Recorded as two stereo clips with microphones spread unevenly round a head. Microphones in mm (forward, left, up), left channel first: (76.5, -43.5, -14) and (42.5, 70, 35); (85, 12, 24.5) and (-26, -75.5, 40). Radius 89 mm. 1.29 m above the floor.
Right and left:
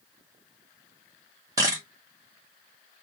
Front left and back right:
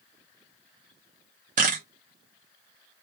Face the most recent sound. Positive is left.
turn(degrees=170)